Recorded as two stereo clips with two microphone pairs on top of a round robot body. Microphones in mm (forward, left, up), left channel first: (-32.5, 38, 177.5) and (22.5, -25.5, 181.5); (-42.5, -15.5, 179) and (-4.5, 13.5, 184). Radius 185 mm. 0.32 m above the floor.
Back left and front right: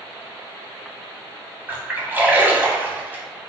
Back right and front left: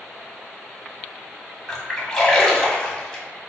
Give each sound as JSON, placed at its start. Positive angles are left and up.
{"t": 1.7, "sound": "a splash", "azimuth_deg": -90, "distance_m": 1.5}